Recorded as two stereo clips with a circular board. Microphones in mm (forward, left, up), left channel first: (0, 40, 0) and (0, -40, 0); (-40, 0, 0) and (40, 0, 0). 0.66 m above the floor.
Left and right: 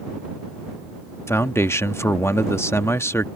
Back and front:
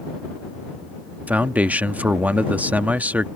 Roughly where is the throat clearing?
No throat clearing in this recording.